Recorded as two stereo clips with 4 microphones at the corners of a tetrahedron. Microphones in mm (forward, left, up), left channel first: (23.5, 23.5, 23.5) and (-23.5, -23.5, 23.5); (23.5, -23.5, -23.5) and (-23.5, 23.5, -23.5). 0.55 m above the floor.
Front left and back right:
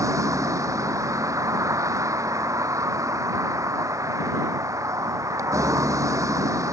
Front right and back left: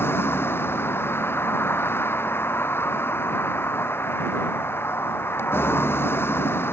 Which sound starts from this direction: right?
A vehicle, at 0.0 s.